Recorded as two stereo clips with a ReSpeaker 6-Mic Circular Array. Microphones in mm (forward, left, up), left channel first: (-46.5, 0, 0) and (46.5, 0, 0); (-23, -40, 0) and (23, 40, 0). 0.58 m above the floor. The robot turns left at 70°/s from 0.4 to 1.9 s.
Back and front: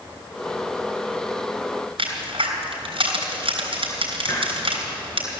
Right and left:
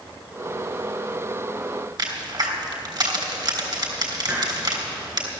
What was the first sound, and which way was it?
A crack, 15° left.